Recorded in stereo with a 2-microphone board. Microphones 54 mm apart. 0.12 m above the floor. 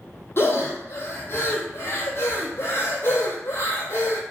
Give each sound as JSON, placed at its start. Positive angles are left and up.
{"t": 0.4, "sound": "breathing", "side_deg": 50, "distance_m": 0.6}